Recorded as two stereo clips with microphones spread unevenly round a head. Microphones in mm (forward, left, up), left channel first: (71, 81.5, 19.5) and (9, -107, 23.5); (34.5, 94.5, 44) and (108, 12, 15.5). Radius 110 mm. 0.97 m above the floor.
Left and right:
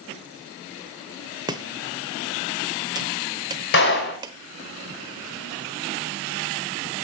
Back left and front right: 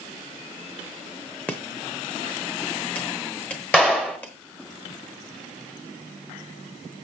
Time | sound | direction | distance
1.5 | chopping | 170° right | 0.8 m
3.7 | a clap | 50° left | 5 m